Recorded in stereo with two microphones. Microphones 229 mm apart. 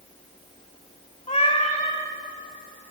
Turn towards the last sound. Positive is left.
turn(degrees=30)  # may be behind; listen again after turning